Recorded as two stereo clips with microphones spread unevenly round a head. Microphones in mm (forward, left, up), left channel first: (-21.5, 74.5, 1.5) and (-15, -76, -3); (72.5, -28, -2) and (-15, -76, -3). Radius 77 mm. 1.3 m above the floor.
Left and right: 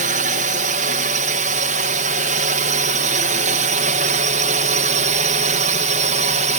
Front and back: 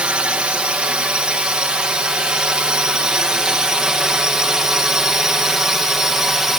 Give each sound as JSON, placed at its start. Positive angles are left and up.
{"t": 0.0, "sound": "a drone", "azimuth_deg": -75}